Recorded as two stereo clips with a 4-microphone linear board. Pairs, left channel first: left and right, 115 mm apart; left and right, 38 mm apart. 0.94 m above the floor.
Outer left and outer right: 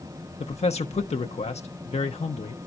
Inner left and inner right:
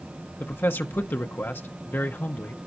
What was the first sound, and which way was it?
A man speaking, 70° left (ahead or behind).